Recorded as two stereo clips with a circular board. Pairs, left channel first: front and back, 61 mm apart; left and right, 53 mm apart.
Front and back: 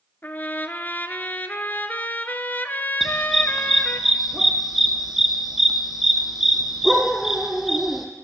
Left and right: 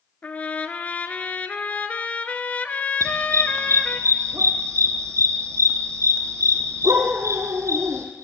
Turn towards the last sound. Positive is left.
turn(degrees=-95)